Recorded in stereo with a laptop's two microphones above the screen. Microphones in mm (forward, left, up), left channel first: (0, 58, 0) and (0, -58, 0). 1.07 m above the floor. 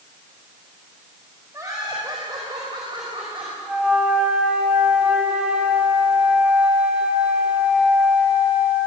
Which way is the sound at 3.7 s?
10° right (ahead or behind).